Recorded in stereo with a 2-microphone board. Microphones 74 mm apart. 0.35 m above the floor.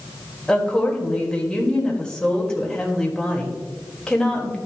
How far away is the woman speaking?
About 1.5 m.